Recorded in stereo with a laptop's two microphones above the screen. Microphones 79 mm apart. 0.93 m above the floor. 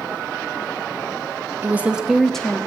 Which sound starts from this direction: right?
A woman speaking, at 1.6 s.